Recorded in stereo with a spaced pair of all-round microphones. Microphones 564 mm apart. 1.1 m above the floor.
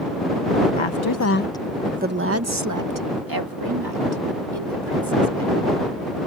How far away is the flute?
I don't hear a flute.